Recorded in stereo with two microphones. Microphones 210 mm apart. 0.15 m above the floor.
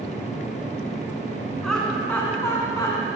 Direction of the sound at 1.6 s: Centre (ahead or behind).